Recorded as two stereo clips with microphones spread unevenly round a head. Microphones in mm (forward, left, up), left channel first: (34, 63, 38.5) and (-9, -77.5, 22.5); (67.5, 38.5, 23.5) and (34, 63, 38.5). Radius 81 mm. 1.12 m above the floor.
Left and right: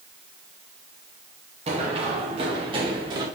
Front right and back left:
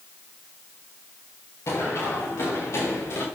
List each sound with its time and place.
1.7 s running footsteps: 60° right, 5.5 m; by 3.2 s 45° right, 6.5 m